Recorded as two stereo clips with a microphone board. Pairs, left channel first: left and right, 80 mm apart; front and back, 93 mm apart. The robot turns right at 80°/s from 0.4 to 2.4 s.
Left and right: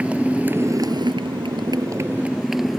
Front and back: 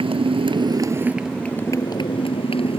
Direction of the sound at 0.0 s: 165° right.